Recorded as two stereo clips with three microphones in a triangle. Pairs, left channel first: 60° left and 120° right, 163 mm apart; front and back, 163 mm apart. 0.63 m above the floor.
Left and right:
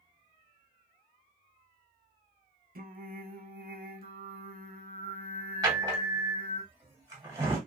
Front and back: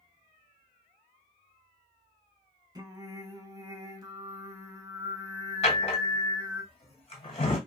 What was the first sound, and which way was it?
Singing, 115° right.